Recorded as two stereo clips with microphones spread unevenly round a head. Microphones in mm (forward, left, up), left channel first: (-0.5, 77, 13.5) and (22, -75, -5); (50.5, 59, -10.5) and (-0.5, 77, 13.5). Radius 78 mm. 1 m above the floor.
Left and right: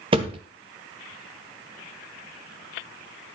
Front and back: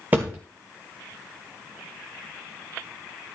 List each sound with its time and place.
0.1 s a thud: 140° right, 1.1 m